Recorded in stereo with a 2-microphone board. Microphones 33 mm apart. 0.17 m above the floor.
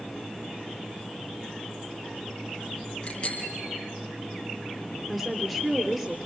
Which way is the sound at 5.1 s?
15° right (ahead or behind).